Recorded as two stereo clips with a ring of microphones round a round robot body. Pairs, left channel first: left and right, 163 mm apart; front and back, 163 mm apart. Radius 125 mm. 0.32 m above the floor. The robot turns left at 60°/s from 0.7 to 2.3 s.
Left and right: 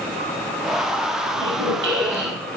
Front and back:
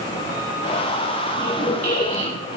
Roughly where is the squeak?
Right.